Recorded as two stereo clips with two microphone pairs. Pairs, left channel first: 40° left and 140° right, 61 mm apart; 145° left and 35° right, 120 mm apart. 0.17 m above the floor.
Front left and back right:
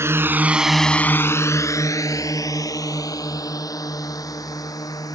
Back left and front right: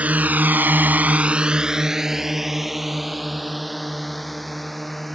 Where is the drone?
110° right; by 5.2 s 55° left.